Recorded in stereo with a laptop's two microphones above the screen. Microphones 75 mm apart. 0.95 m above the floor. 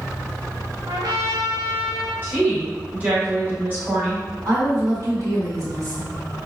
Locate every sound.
0.9 s a trumpet: 65° right (ahead or behind), 1.3 m
2.2 s a woman speaking: 25° right (ahead or behind), 1.6 m
4.5 s a woman speaking: 50° right (ahead or behind), 2.0 m